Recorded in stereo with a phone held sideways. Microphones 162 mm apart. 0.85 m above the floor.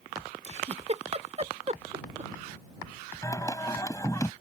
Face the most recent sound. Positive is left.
turn(degrees=20)  # may be behind; listen again after turning